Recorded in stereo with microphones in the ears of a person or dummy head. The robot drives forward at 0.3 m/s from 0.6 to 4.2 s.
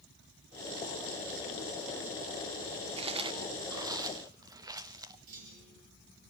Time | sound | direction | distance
3.0 | chewing | 30° right (ahead or behind) | 0.5 m
5.3 | a clunk | 45° right (ahead or behind) | 5.5 m